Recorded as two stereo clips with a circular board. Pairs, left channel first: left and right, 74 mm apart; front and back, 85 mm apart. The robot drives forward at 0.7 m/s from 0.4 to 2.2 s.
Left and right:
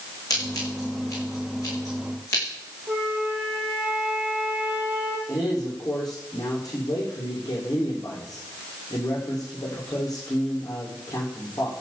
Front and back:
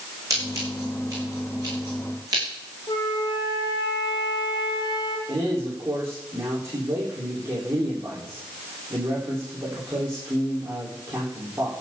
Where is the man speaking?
125° left, 9 m.